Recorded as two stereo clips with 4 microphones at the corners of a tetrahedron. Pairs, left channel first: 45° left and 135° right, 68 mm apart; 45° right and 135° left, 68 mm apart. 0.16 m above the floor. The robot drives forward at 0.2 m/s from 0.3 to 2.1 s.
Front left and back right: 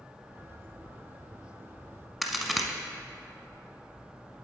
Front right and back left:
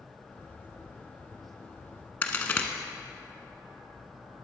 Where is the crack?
50° right, 0.9 m.